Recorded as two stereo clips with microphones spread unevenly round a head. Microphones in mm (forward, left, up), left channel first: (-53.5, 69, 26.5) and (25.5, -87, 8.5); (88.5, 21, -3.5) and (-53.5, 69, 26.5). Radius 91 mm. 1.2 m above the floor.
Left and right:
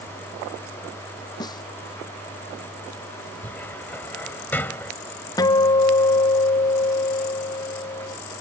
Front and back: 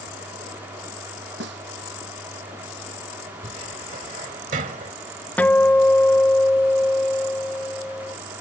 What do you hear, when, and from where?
1.4 s a snare drum: 175° right
3.4 s a cupboard door: 170° right
5.4 s a guitar: 45° left